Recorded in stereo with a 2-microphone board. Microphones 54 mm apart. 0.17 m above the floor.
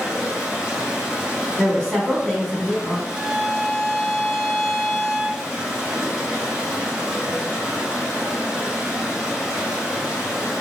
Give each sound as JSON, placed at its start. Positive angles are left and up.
{"t": 0.0, "sound": "running water", "side_deg": -10, "distance_m": 1.6}
{"t": 1.6, "sound": "a woman speaking", "side_deg": 20, "distance_m": 1.1}
{"t": 3.1, "sound": "a violin", "side_deg": 0, "distance_m": 1.9}